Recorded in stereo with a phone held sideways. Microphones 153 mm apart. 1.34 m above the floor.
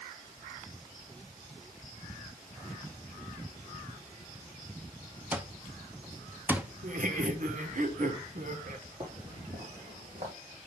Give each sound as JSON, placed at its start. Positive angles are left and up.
{"t": 5.3, "sound": "an alarm clock", "side_deg": -10, "distance_m": 0.6}
{"t": 6.8, "sound": "laughter", "side_deg": -60, "distance_m": 1.2}
{"t": 9.0, "sound": "footsteps", "side_deg": -45, "distance_m": 3.5}